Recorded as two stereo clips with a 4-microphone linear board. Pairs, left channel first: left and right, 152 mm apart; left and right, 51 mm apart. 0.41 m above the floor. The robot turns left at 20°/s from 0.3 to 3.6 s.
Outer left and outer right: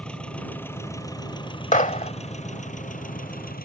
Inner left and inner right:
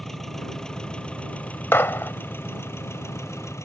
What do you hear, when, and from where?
0.0 s an engine running: 175° left; by 3.7 s 105° left
1.7 s a gunshot: 55° left (ahead or behind); by 2.1 s 60° left (ahead or behind)